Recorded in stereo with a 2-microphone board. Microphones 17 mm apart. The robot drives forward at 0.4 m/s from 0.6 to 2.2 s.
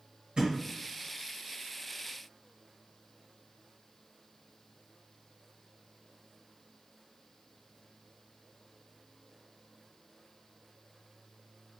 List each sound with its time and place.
0.4 s a thud: 60° right (ahead or behind), 1.9 m